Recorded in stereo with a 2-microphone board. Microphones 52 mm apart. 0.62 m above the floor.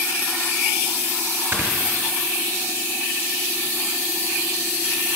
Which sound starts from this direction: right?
Snoring, at 1.5 s.